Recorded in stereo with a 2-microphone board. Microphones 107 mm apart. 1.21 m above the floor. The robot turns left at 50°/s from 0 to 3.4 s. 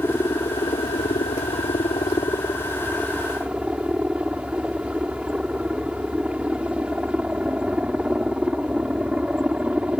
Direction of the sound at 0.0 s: 160° left.